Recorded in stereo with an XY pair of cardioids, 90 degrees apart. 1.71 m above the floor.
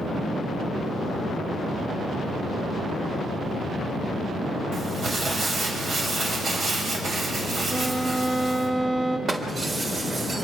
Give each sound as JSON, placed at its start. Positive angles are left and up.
{"t": 4.7, "sound": "crumpling", "azimuth_deg": -55, "distance_m": 7.0}
{"t": 7.7, "sound": "a violin", "azimuth_deg": -35, "distance_m": 5.5}
{"t": 9.3, "sound": "breaking glass", "azimuth_deg": -35, "distance_m": 3.5}